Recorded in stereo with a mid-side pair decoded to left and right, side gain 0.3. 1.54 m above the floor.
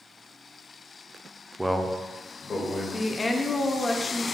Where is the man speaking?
5° right, 0.5 m; by 2.8 s 70° left, 1.2 m.